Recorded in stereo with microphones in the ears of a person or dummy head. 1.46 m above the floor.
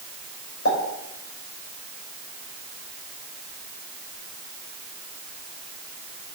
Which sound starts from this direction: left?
A pop, at 0.7 s.